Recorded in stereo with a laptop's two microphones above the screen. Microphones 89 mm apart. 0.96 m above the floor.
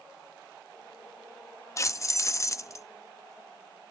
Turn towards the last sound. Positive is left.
turn(degrees=35)  # may be behind; listen again after turning